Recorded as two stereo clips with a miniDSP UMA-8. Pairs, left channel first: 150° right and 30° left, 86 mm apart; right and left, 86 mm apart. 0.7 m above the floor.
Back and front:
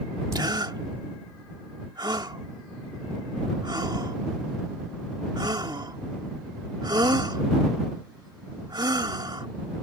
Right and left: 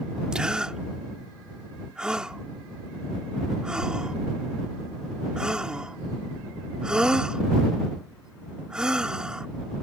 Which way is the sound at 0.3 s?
10° left.